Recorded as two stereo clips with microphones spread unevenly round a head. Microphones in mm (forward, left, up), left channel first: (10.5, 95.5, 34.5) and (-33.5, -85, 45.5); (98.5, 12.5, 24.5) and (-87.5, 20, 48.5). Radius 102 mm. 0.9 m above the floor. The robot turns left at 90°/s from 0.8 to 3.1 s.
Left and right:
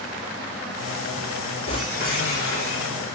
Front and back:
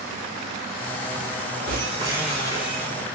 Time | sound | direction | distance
1.7 | breaking glass | 140° left | 7 m